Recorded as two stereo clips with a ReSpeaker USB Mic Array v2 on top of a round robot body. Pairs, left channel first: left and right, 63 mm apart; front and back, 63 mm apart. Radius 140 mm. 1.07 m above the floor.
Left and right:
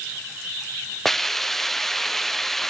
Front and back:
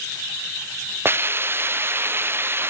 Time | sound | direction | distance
1.1 | a hiss | 175° left | 0.7 m